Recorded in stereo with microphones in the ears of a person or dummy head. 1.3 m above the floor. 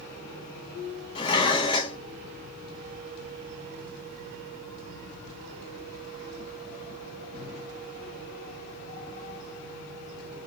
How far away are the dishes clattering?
About 0.9 m.